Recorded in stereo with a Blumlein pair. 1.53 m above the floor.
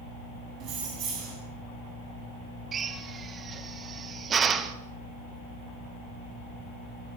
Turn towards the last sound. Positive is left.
turn(degrees=-25)